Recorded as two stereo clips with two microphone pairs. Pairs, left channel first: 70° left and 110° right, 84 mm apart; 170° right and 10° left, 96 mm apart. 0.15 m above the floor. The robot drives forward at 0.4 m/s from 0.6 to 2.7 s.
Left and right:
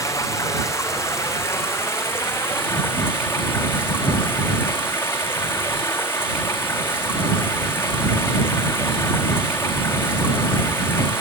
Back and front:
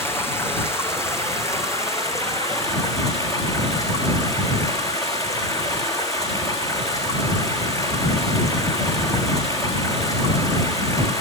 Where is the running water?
125° left, 3.5 m; by 11.2 s 135° left, 4 m.